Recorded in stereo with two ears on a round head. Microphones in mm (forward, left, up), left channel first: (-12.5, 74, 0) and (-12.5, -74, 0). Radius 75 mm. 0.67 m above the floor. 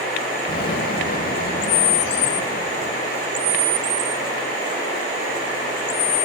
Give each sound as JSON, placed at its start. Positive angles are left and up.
{"t": 0.5, "sound": "an explosion", "side_deg": 60, "distance_m": 1.1}